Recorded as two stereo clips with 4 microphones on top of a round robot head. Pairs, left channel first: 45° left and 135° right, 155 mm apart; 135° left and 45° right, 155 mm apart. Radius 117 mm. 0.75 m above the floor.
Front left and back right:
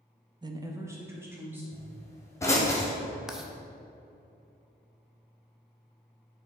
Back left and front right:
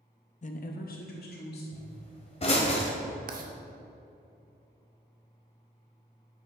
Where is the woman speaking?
165° left, 0.7 m; by 1.6 s 145° left, 2.5 m.